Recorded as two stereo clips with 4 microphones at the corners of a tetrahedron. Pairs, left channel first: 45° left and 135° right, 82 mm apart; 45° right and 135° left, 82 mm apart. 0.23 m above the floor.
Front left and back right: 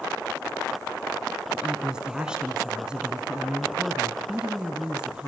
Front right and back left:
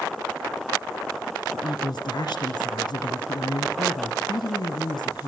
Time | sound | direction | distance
1.5 | a woman speaking | 55° right | 3.5 m